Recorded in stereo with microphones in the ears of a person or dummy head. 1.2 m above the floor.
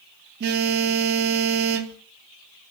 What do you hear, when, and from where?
0.4 s a phone buzzing: 60° right (ahead or behind), 0.6 m